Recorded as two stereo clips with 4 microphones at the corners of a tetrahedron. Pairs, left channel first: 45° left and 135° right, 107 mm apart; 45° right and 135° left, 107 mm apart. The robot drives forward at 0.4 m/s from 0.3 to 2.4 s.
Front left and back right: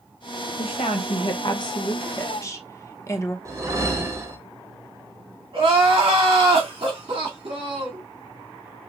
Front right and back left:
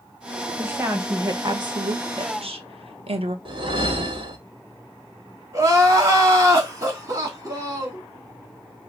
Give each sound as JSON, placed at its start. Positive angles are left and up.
{"t": 0.6, "sound": "a woman speaking", "azimuth_deg": 65, "distance_m": 1.0}
{"t": 3.5, "sound": "a whoosh", "azimuth_deg": 170, "distance_m": 1.0}
{"t": 5.5, "sound": "crying", "azimuth_deg": -165, "distance_m": 2.0}